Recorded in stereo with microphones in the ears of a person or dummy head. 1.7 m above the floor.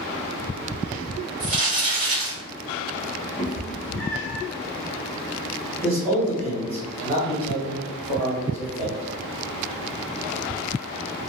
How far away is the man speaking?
About 1.7 m.